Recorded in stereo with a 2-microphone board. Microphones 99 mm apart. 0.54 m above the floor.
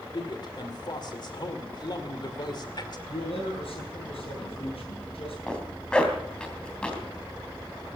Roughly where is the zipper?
Centre.